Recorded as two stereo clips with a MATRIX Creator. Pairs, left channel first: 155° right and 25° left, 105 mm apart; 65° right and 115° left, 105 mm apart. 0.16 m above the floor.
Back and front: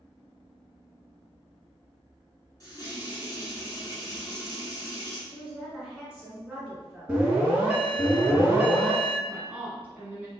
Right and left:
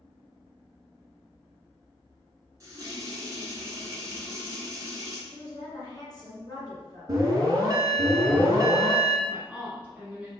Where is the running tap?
160° left, 1.2 m.